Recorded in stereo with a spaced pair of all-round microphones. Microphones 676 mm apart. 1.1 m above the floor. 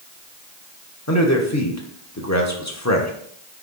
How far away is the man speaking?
About 1.1 m.